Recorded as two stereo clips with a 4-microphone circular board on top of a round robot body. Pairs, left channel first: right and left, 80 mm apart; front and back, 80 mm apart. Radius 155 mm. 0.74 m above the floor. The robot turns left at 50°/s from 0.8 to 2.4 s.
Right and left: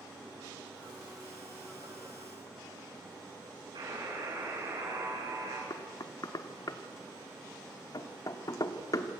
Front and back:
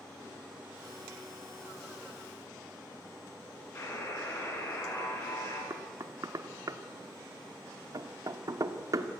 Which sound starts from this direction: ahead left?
A buzzer, at 3.8 s.